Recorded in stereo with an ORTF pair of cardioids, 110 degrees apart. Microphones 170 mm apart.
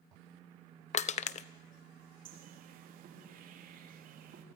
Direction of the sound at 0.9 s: 45° left.